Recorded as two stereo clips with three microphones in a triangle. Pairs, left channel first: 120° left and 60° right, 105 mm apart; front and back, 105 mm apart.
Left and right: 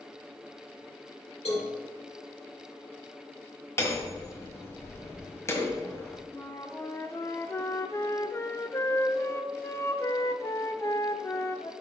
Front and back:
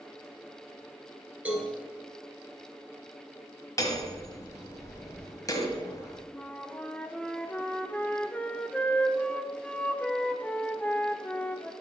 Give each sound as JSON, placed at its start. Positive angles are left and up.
{"t": 1.4, "sound": "a cowbell", "azimuth_deg": 105, "distance_m": 2.5}
{"t": 3.8, "sound": "hammering", "azimuth_deg": 55, "distance_m": 1.5}
{"t": 6.3, "sound": "a flute", "azimuth_deg": 70, "distance_m": 0.6}